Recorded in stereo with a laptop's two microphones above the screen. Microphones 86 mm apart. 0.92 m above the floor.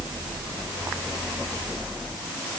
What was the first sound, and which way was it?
Only background noise.